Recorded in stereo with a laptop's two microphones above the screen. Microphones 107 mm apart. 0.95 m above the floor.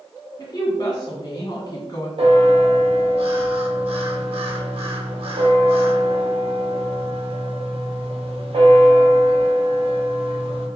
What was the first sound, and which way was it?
A woman speaking, 40° left (ahead or behind).